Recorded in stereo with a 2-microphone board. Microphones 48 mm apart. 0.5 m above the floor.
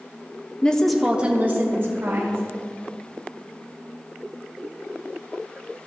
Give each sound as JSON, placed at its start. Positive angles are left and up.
{"t": 0.6, "sound": "a woman speaking", "side_deg": 20, "distance_m": 0.7}